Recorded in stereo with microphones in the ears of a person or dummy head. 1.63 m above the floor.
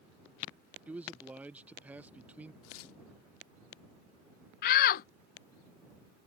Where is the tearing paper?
80° left.